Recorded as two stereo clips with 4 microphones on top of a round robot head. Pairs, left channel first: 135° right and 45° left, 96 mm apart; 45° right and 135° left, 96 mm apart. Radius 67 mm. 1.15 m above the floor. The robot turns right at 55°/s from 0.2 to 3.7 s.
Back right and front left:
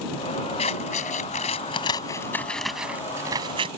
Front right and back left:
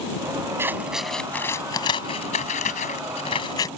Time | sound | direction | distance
0.6 | scissors | 160° right | ?